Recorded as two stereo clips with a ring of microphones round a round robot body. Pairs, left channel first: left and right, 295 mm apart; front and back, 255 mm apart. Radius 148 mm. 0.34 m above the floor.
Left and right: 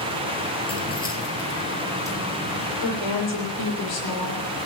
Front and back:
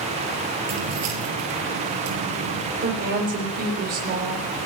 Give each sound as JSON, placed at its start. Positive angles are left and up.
{"t": 0.7, "sound": "keys jangling", "azimuth_deg": 165, "distance_m": 5.0}
{"t": 2.8, "sound": "a woman speaking", "azimuth_deg": 130, "distance_m": 9.5}